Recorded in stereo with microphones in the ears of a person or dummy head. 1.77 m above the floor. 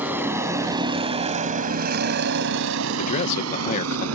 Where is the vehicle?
10° right (ahead or behind); by 4.2 s 80° right.